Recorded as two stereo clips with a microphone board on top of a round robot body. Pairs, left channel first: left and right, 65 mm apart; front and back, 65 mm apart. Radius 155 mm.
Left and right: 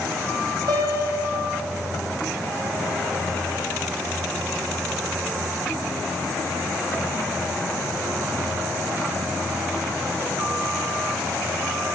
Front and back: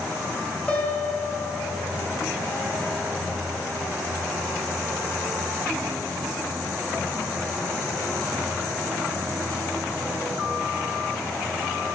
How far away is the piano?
About 2.5 m.